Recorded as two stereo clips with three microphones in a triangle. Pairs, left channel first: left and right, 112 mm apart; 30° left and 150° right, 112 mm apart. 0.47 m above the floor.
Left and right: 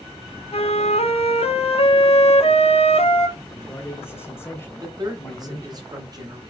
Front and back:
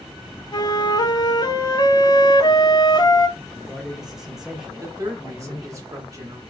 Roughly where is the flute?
Left.